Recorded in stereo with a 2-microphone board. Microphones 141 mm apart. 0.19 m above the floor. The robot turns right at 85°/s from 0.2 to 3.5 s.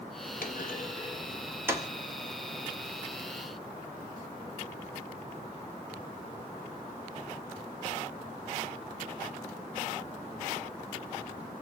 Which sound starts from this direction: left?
A clunk, at 0.4 s.